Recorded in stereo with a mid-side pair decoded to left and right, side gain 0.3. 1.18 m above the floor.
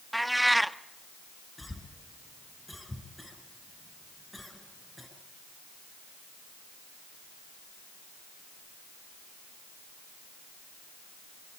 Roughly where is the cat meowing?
Ahead.